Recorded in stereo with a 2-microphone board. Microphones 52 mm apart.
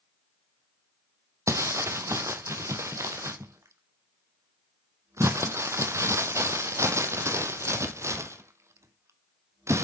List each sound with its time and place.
1.5 s crumpling: 65° right (ahead or behind), 0.8 m